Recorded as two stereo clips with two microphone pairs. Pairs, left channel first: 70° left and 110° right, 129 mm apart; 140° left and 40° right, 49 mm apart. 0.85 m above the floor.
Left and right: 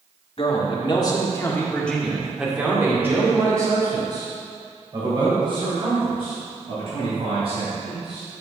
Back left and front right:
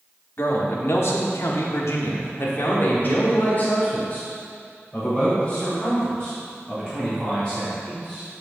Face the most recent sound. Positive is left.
turn(degrees=-145)